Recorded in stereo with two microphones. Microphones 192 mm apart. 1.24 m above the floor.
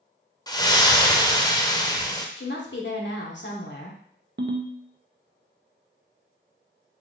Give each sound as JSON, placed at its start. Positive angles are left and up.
{"t": 0.5, "sound": "a splash", "side_deg": 20, "distance_m": 0.6}
{"t": 2.4, "sound": "a woman speaking", "side_deg": 65, "distance_m": 1.0}
{"t": 4.4, "sound": "a ringtone", "side_deg": -60, "distance_m": 0.6}